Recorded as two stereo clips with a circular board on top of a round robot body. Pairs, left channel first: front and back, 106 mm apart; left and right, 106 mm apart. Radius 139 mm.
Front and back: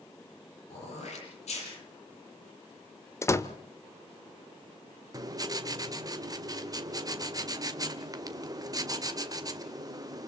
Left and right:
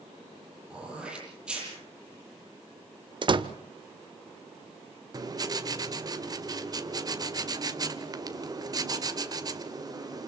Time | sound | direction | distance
0.7 | throat clearing | 10° right | 9 m
3.2 | a door slam | 60° right | 1.2 m
5.1 | writing | 135° right | 2 m